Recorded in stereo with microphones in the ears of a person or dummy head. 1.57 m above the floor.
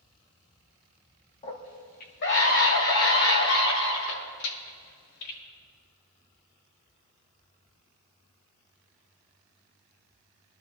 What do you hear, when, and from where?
1.4 s a scream: 30° left (ahead or behind), 2 m; by 5.4 s 85° left, 5 m